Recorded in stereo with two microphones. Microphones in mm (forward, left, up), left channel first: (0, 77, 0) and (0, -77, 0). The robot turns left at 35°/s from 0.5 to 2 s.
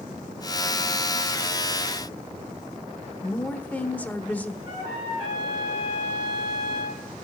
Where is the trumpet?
35° right (ahead or behind), 8.5 m.